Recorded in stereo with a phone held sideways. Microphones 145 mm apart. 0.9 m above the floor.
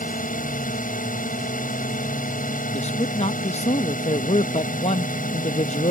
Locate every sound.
0.0 s a drone: 60° left (ahead or behind)
2.7 s a man speaking: 45° left (ahead or behind)